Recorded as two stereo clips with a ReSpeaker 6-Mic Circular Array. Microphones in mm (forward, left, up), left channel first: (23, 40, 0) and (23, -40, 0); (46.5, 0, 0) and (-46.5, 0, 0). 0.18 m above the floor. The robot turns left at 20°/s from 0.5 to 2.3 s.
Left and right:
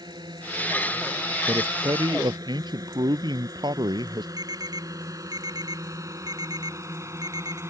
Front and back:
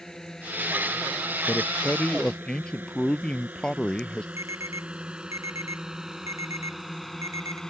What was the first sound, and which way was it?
A drone, 85° right.